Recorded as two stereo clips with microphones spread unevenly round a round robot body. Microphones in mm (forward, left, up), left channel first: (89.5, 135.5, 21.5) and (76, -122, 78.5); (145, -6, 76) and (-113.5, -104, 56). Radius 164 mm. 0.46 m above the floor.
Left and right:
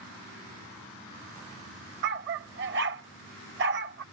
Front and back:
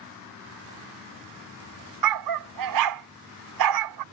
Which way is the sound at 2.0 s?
150° right.